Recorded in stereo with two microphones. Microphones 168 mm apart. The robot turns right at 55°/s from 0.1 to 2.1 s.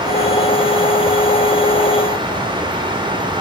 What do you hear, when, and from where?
Only background noise.